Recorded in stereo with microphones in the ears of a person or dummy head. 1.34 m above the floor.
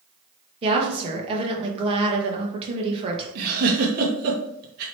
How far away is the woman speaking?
About 1.0 m.